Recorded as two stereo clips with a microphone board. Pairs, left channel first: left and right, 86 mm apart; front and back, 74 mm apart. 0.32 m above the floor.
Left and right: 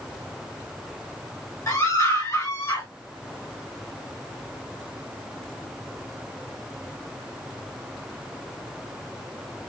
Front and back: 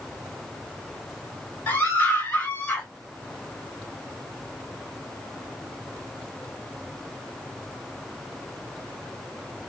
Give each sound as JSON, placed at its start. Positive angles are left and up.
{"t": 1.7, "sound": "a scream", "azimuth_deg": 50, "distance_m": 1.9}